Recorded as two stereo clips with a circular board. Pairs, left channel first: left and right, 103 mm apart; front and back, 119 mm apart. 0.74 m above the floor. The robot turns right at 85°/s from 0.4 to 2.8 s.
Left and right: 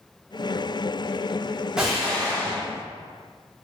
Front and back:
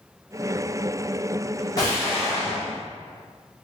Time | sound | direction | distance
1.8 | an explosion | 15° right | 1.1 m